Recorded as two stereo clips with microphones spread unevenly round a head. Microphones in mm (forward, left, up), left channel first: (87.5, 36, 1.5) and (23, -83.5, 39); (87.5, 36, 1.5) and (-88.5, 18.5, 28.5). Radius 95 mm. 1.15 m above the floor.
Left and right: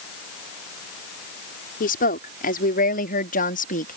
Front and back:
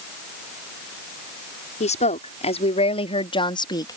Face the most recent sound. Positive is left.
turn(degrees=75)